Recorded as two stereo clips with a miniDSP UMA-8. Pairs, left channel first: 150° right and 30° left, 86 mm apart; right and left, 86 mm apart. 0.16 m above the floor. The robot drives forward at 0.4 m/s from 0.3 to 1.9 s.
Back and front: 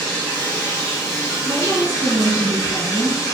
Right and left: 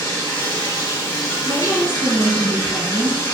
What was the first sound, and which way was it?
Running water, 90° right.